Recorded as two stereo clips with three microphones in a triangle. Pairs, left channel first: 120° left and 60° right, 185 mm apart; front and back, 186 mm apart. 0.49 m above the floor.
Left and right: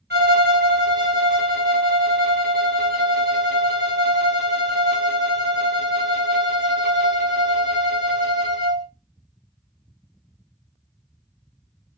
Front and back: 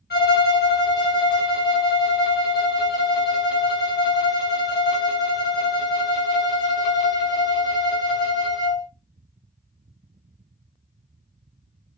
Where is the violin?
30° right, 1.0 m.